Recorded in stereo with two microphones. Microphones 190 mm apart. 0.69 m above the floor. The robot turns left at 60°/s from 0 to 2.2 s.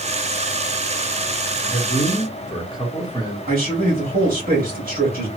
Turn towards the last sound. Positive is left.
turn(degrees=-50)  # may be behind; listen again after turning